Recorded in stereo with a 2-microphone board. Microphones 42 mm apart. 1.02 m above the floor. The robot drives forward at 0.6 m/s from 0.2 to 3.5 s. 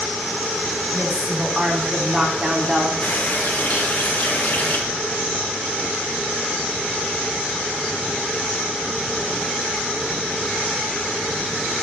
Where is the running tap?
35° left (ahead or behind), 2.5 m.